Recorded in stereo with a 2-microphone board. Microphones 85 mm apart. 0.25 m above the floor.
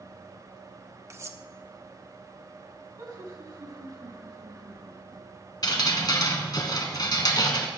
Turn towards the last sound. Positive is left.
turn(degrees=50)  # may be behind; listen again after turning